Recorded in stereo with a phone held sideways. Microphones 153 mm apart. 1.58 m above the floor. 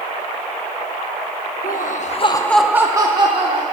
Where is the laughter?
70° left (ahead or behind), 0.8 m; by 3.6 s 40° right (ahead or behind), 1.3 m.